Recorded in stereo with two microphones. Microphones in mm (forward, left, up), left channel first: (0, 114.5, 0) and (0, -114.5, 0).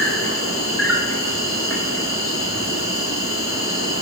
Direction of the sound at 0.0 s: 70° left (ahead or behind).